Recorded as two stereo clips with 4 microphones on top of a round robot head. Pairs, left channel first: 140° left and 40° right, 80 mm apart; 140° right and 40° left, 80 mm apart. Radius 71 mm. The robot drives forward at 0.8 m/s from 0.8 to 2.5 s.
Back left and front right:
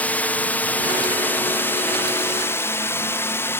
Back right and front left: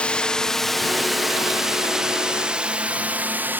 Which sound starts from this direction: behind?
A drone, at 0.0 s.